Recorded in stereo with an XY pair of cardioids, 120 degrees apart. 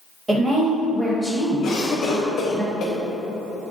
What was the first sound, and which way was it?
A woman speaking, 20° right.